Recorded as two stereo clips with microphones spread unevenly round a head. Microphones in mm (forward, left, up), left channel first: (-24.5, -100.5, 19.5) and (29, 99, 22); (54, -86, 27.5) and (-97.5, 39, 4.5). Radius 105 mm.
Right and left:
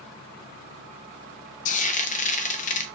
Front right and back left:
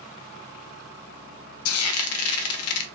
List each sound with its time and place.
1.6 s frying: 50° right, 0.6 m